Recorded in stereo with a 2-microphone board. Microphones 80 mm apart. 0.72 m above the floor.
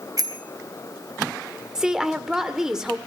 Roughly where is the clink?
I don't hear a clink.